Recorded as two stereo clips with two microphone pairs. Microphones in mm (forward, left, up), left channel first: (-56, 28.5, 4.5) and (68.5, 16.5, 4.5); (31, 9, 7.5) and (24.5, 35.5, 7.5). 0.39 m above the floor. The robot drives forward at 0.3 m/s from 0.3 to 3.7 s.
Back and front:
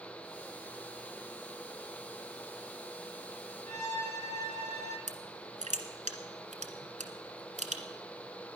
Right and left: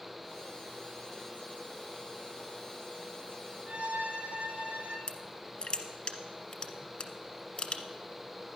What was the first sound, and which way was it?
A violin, 130° left.